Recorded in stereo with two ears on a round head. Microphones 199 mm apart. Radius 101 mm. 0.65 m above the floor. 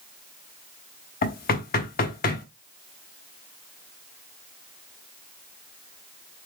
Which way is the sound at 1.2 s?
45° left (ahead or behind).